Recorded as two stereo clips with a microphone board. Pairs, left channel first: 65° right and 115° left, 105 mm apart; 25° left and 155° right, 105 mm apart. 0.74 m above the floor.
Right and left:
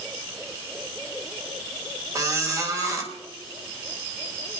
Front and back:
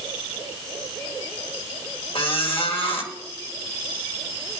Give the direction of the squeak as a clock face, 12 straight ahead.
10 o'clock.